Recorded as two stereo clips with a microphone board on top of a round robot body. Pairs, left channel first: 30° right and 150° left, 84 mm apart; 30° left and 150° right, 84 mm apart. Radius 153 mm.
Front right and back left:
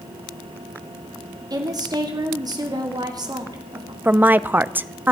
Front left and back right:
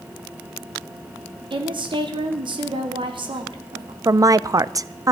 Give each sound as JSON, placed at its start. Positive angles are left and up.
{"t": 1.5, "sound": "a woman speaking", "azimuth_deg": -170, "distance_m": 2.5}
{"t": 4.0, "sound": "a woman speaking", "azimuth_deg": -155, "distance_m": 0.7}